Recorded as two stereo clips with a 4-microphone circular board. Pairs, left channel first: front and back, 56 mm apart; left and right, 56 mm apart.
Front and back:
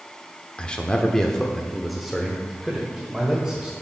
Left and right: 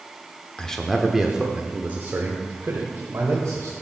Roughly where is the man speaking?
Ahead left.